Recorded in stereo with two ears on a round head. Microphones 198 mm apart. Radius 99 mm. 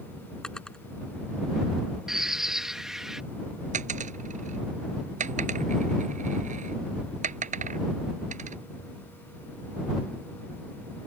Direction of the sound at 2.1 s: 5° right (ahead or behind).